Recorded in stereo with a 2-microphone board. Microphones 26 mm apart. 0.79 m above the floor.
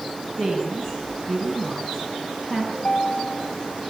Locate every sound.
0.4 s a woman speaking: 5° left (ahead or behind), 6 m
2.7 s a ringtone: 45° left (ahead or behind), 2.5 m